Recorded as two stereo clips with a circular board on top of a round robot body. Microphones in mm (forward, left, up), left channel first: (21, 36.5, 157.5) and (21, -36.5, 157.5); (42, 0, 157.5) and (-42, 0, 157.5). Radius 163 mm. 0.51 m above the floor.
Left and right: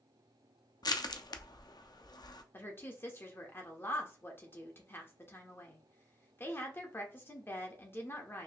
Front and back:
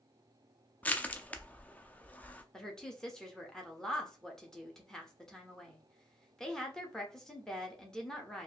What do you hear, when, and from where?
0.8 s crushing: 70° left, 0.6 m
2.5 s a woman speaking: 75° left, 1.2 m